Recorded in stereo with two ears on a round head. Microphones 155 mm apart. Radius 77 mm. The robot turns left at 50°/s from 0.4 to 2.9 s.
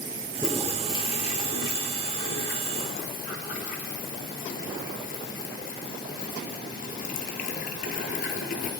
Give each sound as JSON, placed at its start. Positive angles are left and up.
{"t": 0.3, "sound": "a toilet flushing", "side_deg": 0, "distance_m": 1.9}